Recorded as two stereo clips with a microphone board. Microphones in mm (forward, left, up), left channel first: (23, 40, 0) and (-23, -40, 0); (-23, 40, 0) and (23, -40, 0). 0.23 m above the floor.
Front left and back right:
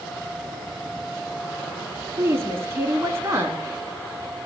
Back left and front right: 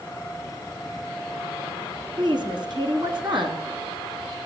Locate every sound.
2.2 s a woman speaking: 65° right, 2 m